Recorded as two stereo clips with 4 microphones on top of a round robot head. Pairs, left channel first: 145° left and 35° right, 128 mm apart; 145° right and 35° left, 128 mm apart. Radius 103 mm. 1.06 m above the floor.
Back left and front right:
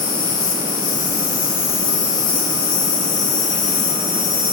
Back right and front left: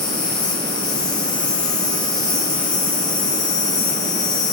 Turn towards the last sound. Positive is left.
turn(degrees=160)